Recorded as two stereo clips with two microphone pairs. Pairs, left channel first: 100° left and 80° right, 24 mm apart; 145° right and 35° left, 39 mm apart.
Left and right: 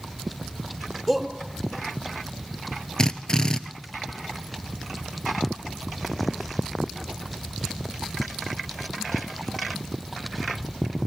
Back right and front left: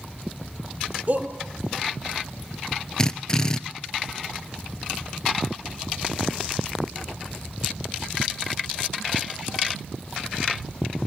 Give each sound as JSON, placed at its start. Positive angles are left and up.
{"t": 1.1, "sound": "a shout", "azimuth_deg": 10, "distance_m": 2.5}
{"t": 3.0, "sound": "a drill", "azimuth_deg": 150, "distance_m": 0.8}